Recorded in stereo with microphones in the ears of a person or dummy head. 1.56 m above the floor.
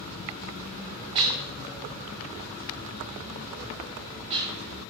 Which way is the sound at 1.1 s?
20° right (ahead or behind).